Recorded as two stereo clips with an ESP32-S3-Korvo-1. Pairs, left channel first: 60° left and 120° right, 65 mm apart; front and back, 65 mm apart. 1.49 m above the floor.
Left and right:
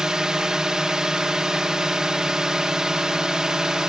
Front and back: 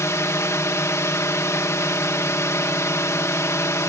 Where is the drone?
40° right.